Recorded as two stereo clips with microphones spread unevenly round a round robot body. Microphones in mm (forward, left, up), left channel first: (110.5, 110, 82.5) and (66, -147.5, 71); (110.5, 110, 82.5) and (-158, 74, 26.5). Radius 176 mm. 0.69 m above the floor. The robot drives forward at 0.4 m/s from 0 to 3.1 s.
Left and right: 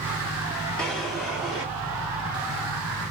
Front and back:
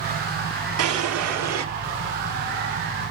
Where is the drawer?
170° left, 0.7 m; by 1.6 s 175° left, 1.0 m.